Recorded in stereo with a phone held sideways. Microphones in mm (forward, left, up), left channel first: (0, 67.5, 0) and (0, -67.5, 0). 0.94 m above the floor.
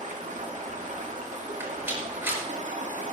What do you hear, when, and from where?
0.0 s running water: 75° right (ahead or behind), 1.7 m
1.6 s a rattle: 15° right (ahead or behind), 5 m